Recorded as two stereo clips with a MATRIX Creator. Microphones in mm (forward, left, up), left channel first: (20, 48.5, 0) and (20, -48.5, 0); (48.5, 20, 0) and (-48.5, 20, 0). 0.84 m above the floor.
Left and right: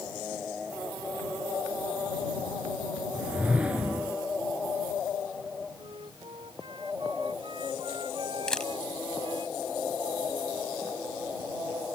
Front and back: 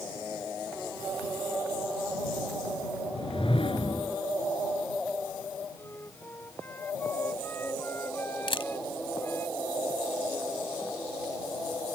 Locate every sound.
3.1 s a whoosh: 15° right
5.8 s a flute: 65° right
8.5 s a camera shutter: 10° left